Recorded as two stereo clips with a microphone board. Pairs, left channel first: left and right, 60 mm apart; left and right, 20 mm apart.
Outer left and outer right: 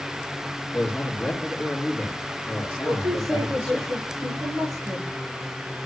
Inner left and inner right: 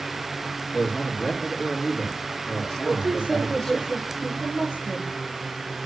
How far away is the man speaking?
About 3 m.